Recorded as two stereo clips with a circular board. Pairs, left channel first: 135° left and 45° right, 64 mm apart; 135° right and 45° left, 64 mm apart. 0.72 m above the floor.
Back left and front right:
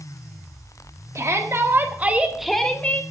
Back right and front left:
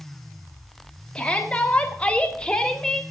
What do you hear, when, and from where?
1.1 s a shout: 65° right, 1.8 m; by 3.0 s 150° left, 1.2 m